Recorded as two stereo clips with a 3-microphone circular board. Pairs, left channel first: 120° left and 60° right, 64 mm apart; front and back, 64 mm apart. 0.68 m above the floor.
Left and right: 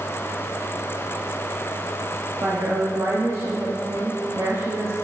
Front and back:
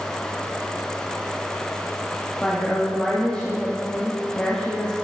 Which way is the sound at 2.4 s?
70° right.